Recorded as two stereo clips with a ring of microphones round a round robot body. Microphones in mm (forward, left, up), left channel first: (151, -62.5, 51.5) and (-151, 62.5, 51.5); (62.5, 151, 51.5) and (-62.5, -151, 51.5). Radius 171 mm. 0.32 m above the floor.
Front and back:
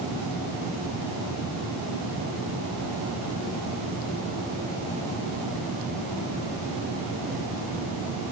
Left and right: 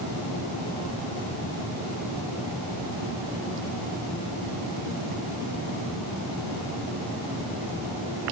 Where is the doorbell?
I don't hear a doorbell.